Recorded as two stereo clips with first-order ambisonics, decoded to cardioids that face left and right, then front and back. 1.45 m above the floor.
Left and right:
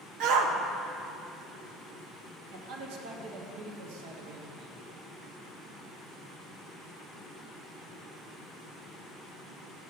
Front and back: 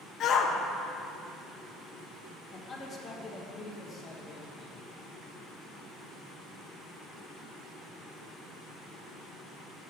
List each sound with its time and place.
0.2 s a shout: 55° right, 0.8 m
2.5 s a man speaking: 75° right, 1.2 m